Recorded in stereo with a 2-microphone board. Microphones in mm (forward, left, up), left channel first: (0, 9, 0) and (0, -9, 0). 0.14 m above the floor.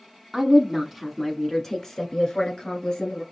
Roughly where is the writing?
No writing in this recording.